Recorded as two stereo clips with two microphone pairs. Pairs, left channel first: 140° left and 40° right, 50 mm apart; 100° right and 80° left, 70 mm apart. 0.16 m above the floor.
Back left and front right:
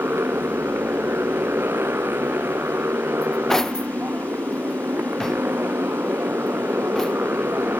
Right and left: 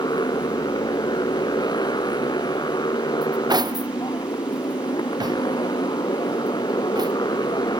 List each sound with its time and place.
0.0 s a motorcycle: 80° right
3.2 s cutlery clinking: 60° left